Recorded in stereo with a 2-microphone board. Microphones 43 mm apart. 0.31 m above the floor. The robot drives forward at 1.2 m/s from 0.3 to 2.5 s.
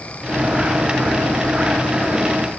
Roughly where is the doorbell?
No doorbell in this recording.